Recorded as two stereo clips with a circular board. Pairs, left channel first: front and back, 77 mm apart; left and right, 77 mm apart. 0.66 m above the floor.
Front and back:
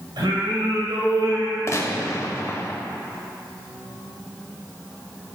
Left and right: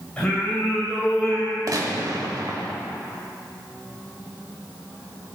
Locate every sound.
0.2 s singing: 170° left, 2 m
1.7 s a gunshot: 50° right, 0.8 m